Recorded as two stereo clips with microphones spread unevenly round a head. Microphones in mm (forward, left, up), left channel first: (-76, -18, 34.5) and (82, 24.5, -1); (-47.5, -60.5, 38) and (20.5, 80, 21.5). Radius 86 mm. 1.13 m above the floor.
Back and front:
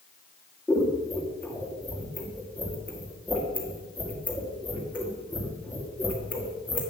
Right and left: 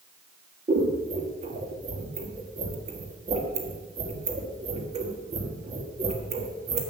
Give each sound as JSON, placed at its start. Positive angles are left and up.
{"t": 0.7, "sound": "scissors", "azimuth_deg": 115, "distance_m": 1.6}